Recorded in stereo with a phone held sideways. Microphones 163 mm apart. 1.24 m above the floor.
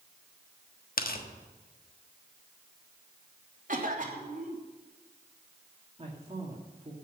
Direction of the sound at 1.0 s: 65° left (ahead or behind).